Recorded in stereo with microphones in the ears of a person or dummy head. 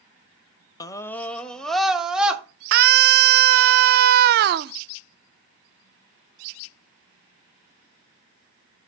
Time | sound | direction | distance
0.8 | a scream | 20° left (ahead or behind) | 0.6 m
2.7 | a scream | 50° right (ahead or behind) | 0.5 m